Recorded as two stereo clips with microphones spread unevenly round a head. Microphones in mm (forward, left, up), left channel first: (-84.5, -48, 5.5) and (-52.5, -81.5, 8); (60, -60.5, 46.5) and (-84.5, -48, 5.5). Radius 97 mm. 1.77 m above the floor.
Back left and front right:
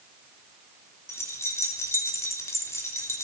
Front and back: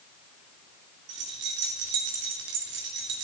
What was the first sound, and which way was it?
Keys jangling, 150° left.